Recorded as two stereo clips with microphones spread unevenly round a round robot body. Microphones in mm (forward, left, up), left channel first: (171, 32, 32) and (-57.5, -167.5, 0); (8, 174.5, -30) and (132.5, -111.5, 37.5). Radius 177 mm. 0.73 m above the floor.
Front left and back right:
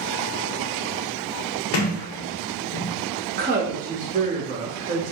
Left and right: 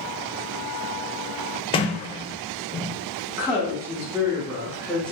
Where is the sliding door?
30° left, 0.5 m.